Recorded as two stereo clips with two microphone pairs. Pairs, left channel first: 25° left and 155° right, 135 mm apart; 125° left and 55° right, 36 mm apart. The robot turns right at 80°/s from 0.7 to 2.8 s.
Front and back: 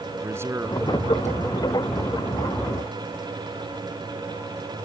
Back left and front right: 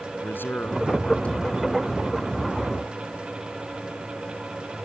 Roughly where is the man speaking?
Behind left.